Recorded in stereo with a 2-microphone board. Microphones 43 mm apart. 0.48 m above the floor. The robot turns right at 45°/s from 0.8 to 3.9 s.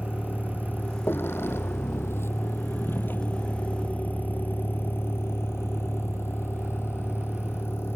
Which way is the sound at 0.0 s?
55° left (ahead or behind).